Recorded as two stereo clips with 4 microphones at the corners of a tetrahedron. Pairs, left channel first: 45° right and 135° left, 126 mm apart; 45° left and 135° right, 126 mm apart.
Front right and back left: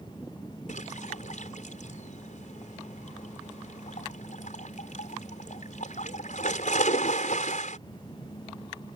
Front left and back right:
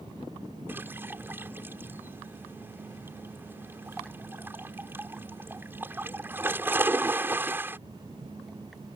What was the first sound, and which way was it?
A splash, 60° right.